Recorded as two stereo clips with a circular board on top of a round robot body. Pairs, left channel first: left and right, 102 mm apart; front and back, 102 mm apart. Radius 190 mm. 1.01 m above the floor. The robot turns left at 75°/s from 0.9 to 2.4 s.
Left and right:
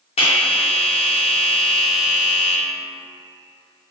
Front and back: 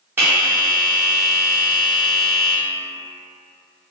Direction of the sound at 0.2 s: 110° left.